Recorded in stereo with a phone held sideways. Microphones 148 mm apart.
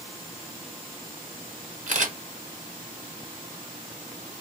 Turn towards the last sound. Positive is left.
turn(degrees=-55)  # may be behind; listen again after turning